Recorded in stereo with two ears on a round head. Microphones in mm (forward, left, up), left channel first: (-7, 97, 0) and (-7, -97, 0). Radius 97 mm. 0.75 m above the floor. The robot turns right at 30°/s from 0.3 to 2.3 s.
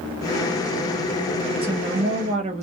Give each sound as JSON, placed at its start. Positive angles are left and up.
{"t": 1.6, "sound": "a woman speaking", "side_deg": -25, "distance_m": 0.9}